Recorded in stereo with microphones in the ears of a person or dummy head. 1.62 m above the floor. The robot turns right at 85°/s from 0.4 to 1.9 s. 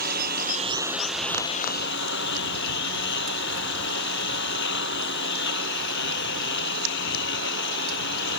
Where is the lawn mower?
60° right; by 8.4 s 70° left.